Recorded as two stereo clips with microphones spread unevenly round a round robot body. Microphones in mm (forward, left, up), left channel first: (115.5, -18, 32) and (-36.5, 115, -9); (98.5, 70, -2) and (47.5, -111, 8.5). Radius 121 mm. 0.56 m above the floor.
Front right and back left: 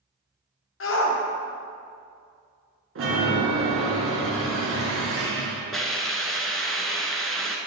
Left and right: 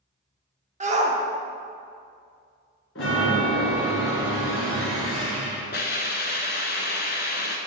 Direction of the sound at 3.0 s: 120° left.